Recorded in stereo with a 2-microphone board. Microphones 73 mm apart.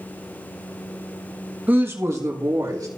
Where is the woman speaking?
20° right (ahead or behind), 1.4 m; by 2.9 s 65° right (ahead or behind), 2.5 m.